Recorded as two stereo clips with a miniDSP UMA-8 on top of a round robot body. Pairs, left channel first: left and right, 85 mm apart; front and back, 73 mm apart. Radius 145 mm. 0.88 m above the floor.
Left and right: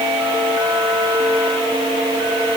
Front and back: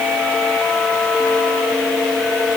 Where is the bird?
I don't hear a bird.